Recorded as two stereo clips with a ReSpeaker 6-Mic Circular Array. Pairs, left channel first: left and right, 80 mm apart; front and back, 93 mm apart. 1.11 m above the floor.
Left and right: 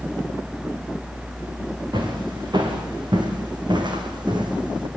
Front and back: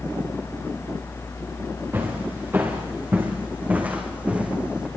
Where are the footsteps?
115° right, 6.5 m; by 4.9 s 100° right, 4 m.